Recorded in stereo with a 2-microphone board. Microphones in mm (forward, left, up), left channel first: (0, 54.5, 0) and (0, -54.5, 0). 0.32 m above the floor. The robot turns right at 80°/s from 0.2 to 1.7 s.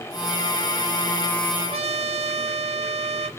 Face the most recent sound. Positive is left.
turn(degrees=-70)  # may be behind; listen again after turning